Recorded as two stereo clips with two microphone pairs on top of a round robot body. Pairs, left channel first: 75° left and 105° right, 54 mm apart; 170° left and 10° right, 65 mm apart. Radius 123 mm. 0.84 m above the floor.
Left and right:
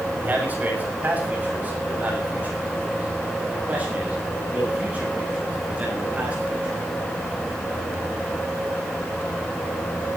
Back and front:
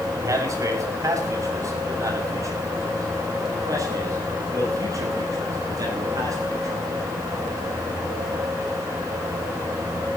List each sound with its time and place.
0.2 s a man speaking: 45° right, 6.5 m; by 6.7 s 40° right, 12 m